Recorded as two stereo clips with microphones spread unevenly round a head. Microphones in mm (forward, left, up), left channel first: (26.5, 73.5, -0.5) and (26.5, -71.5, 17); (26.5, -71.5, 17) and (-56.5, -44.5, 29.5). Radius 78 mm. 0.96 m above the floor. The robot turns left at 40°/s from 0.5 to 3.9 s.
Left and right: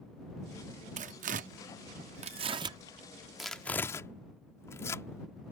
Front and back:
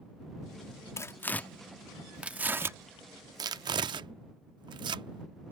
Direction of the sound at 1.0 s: 75° right.